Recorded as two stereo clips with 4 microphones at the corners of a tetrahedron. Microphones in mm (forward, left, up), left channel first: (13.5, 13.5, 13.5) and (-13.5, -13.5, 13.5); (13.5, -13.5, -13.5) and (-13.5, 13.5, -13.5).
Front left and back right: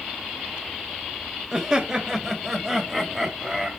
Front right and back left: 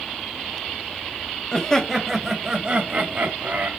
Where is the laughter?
90° right, 1.5 m; by 3.7 s 140° left, 2.0 m.